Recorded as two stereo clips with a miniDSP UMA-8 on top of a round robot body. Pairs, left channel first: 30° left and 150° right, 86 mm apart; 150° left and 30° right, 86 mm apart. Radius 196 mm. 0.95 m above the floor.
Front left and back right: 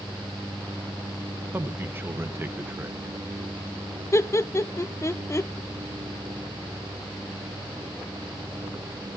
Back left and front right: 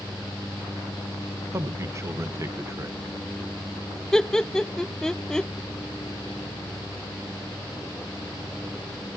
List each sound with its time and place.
1.5 s a man speaking: 85° right, 1.3 m
4.1 s laughter: 70° left, 0.6 m